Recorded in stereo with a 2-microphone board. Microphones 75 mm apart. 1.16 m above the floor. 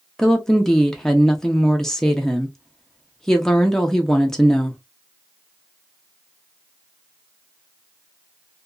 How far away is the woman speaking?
About 0.6 m.